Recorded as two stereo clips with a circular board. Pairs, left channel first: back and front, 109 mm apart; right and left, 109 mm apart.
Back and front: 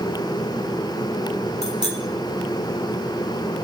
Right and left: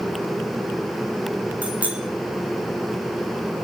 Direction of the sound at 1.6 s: 165° left.